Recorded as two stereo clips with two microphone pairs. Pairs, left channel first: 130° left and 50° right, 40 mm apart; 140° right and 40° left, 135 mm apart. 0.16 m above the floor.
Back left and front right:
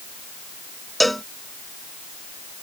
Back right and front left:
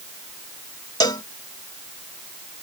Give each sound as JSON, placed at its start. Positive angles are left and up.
{"t": 1.0, "sound": "a cowbell", "azimuth_deg": -140}